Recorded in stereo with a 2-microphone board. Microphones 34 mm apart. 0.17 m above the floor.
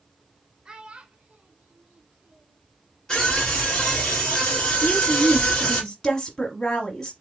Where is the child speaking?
25° right (ahead or behind), 0.9 m; by 2.6 s 45° right (ahead or behind), 1.4 m.